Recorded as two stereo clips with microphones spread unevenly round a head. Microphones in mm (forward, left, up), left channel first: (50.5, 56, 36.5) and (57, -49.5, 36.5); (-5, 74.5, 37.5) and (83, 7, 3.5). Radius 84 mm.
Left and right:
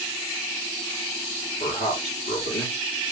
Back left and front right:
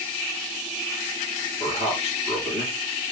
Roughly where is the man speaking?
Left.